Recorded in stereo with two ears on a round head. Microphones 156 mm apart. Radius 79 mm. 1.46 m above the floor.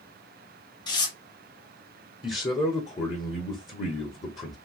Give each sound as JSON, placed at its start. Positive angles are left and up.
{"t": 0.9, "sound": "tearing paper", "side_deg": 25, "distance_m": 0.9}
{"t": 2.2, "sound": "a man speaking", "side_deg": 25, "distance_m": 0.8}